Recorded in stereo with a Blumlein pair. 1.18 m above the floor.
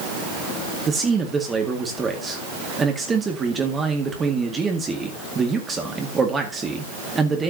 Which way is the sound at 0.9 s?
20° right.